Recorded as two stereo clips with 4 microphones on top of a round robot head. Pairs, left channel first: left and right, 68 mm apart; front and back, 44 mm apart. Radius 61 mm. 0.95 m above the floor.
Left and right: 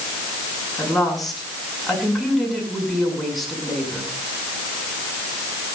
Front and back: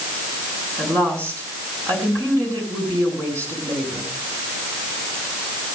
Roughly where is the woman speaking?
Behind.